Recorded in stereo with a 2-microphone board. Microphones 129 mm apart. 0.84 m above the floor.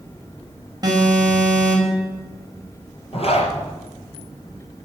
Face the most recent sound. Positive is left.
turn(degrees=55)  # may be behind; listen again after turning